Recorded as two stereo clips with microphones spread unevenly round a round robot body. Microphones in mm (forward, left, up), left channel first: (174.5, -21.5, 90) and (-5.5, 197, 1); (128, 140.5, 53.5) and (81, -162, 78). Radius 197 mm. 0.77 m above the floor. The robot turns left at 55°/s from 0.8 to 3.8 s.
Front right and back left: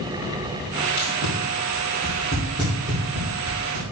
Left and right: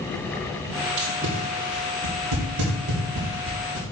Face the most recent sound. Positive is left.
turn(degrees=150)